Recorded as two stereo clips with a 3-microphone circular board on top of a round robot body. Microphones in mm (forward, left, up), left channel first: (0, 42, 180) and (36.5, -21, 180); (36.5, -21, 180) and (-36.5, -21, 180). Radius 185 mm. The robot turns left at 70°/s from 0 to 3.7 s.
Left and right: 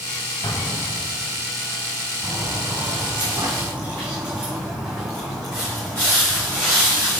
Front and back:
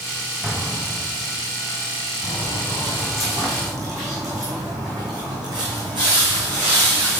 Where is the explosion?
90° left, 1.4 m; by 1.3 s 25° left, 1.4 m.